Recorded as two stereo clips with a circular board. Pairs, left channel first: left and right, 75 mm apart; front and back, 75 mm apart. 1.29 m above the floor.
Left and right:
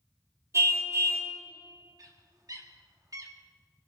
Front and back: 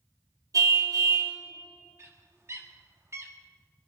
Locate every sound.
0.5 s a car horn: 140° right, 3 m
2.0 s a bird: 130° right, 1.7 m